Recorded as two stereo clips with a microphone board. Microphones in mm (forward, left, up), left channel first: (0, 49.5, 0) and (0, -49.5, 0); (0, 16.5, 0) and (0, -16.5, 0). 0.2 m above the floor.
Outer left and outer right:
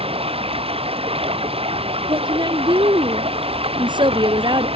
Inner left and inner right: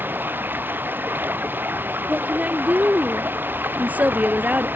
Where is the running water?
70° right (ahead or behind).